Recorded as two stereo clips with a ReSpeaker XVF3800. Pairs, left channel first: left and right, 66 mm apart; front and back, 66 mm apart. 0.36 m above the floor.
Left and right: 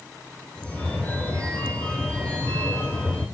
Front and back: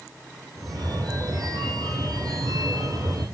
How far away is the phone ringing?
About 8.5 m.